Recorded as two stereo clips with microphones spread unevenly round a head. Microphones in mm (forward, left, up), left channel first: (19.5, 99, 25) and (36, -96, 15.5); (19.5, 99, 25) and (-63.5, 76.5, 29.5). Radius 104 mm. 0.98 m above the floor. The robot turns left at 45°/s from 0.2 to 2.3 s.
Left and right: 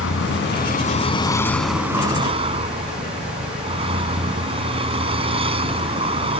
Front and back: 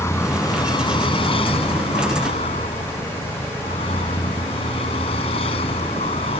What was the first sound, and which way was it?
A vehicle, 70° left.